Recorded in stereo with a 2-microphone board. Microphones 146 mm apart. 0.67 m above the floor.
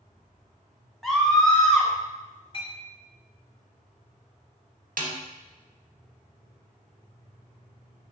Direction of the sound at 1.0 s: Centre (ahead or behind).